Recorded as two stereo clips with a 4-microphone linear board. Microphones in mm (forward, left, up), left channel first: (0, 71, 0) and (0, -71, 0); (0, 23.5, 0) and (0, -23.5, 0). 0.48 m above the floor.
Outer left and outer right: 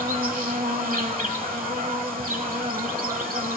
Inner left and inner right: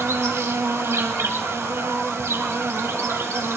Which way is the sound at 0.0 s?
80° right.